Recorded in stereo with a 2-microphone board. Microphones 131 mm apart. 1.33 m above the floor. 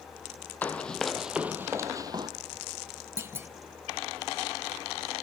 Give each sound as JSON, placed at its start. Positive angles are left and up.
{"t": 0.6, "sound": "running footsteps", "side_deg": 15, "distance_m": 1.8}
{"t": 3.2, "sound": "a clunk", "side_deg": -20, "distance_m": 1.1}